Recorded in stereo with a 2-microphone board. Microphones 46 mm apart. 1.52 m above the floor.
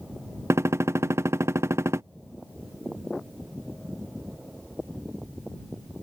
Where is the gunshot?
65° right (ahead or behind).